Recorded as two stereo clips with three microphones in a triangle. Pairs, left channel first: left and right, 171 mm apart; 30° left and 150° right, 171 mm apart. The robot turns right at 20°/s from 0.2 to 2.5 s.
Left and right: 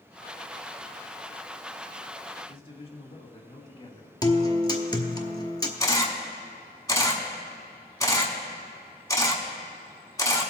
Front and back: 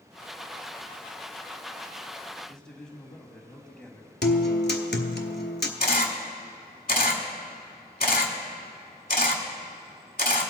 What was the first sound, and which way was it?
A man speaking, 110° left.